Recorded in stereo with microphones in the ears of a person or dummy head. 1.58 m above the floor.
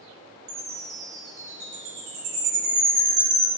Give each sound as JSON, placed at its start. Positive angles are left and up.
{"t": 0.5, "sound": "a chime", "side_deg": -40, "distance_m": 0.6}